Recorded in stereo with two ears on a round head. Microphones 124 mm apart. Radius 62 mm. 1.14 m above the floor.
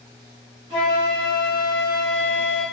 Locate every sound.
0.7 s a flute: 40° right (ahead or behind), 1.4 m